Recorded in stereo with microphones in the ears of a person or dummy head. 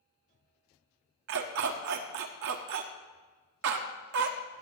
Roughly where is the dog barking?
Right.